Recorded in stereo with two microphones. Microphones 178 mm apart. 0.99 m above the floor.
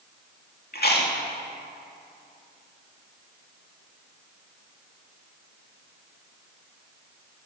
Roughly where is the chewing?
Left.